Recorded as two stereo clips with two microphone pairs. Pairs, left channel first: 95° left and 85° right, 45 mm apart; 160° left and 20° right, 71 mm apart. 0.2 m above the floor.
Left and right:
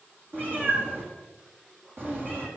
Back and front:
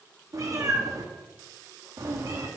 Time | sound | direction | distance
0.3 | a cat meowing | 50° right | 3 m